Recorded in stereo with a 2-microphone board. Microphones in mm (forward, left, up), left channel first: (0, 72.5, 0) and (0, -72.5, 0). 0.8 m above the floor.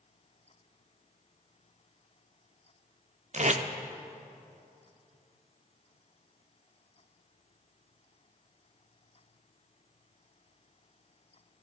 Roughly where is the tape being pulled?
Right.